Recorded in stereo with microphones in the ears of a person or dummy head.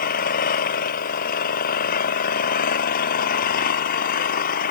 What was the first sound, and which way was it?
An engine running, 55° left (ahead or behind).